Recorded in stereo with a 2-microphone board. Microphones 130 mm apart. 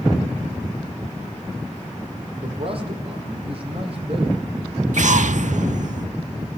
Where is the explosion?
70° right (ahead or behind), 0.5 m.